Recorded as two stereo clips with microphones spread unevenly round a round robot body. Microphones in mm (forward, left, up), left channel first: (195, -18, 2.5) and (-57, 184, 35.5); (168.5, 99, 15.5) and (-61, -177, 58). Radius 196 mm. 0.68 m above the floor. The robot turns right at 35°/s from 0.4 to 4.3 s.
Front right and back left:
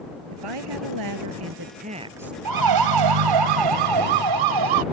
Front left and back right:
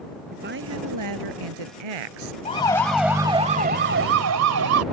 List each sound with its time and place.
0.3 s a woman speaking: 160° left; by 2.4 s 130° right
2.5 s a siren: 125° left; by 4.8 s 175° left